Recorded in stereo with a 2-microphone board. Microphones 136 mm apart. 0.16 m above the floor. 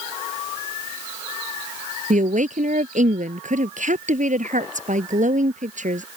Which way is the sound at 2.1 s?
65° right (ahead or behind).